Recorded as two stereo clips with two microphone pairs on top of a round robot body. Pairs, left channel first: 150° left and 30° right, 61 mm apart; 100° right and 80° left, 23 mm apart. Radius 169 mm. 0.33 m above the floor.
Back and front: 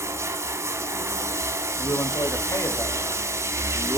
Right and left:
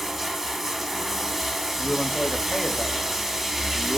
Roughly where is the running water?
Ahead.